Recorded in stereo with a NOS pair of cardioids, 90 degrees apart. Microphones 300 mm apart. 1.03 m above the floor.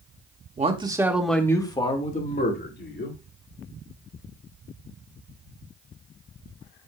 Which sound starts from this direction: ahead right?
A man speaking, at 0.6 s.